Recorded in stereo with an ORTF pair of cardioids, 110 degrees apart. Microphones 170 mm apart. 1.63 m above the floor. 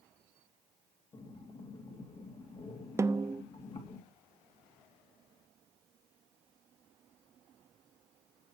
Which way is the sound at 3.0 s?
15° right.